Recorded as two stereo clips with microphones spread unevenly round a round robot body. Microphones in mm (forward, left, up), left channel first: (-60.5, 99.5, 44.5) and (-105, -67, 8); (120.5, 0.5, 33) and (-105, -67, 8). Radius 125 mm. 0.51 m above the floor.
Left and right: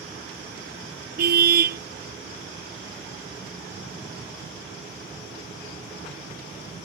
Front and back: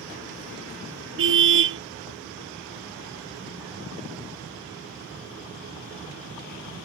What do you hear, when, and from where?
1.2 s a car horn: 130° right